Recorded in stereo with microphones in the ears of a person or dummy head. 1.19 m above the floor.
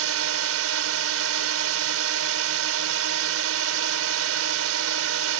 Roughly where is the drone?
Right.